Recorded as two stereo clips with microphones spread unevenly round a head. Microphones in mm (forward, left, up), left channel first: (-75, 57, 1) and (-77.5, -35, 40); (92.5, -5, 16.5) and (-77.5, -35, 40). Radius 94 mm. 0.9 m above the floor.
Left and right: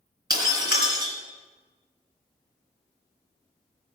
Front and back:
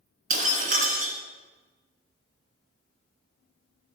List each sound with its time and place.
0.3 s breaking glass: 125° right, 3 m